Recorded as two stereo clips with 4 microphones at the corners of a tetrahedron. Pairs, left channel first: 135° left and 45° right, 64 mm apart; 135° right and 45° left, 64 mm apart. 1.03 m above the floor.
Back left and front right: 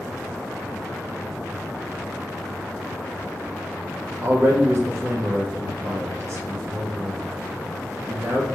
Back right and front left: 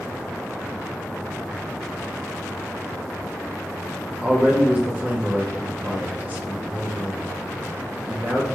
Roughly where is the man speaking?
Ahead.